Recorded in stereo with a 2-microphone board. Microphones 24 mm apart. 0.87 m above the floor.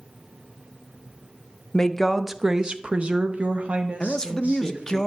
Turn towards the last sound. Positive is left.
turn(degrees=25)  # may be behind; listen again after turning